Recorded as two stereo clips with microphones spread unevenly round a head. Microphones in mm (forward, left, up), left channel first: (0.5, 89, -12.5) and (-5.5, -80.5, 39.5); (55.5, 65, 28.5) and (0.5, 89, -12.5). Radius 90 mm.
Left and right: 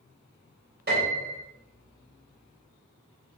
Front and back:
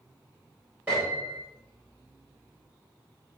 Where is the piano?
130° right, 3.5 m.